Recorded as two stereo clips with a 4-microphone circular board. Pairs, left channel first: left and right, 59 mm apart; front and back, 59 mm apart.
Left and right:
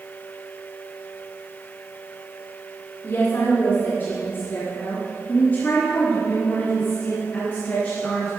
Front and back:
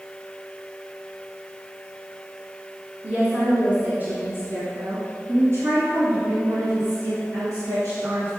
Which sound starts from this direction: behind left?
A woman speaking, at 3.0 s.